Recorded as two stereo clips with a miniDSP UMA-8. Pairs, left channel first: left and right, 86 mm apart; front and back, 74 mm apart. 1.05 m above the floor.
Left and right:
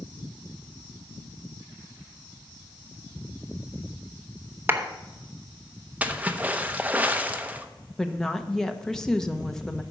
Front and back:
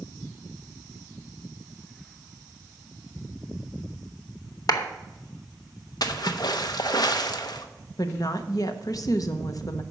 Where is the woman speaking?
10° left, 0.8 m.